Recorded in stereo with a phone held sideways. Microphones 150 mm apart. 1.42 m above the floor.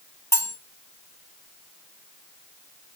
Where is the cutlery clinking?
20° left (ahead or behind), 2.0 m.